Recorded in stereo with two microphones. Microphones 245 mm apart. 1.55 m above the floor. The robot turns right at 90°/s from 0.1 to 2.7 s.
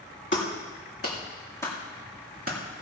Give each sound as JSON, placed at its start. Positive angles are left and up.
{"t": 0.3, "sound": "a clap", "side_deg": 50, "distance_m": 2.5}